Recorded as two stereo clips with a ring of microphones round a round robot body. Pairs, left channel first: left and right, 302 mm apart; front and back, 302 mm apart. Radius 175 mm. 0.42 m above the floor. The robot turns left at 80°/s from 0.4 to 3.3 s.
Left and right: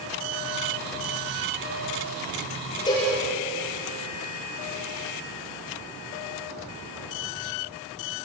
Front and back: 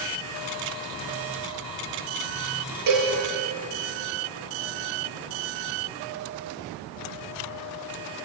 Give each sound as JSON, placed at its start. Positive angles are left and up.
{"t": 2.9, "sound": "a cowbell", "azimuth_deg": 170, "distance_m": 8.5}